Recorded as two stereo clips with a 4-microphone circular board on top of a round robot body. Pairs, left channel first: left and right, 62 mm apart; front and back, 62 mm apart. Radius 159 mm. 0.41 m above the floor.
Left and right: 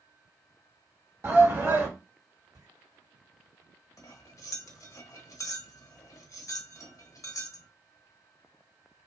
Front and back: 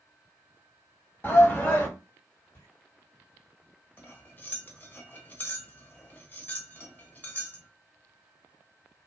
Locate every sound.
1.2 s a shout: 50° right, 1.7 m
2.5 s footsteps: 60° right, 1.5 m
4.0 s cutlery clinking: 60° left, 0.9 m